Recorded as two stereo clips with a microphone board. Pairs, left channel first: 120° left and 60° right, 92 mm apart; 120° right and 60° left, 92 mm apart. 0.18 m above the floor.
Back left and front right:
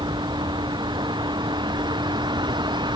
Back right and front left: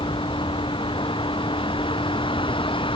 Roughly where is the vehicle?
Right.